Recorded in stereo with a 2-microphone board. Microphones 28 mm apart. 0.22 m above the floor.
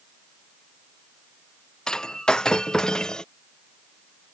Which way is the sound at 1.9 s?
25° left (ahead or behind).